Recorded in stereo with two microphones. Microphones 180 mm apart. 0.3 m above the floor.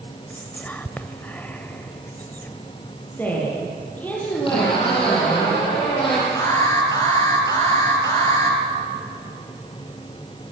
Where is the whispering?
10° left (ahead or behind), 1.0 m.